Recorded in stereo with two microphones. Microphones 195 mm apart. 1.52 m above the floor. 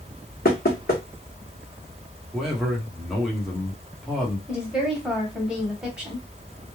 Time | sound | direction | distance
0.5 | knocking | 50° left (ahead or behind) | 1.1 m
2.3 | a man speaking | centre (ahead or behind) | 1.0 m
4.5 | a woman speaking | 5° right (ahead or behind) | 1.2 m